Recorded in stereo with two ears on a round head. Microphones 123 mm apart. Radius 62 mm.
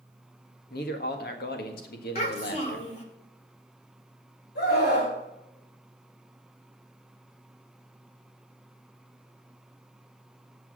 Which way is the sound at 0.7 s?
75° left (ahead or behind).